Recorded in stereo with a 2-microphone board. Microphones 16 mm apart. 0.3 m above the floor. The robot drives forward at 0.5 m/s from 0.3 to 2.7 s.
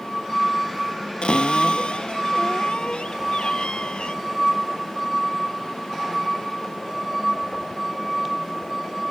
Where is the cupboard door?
80° left.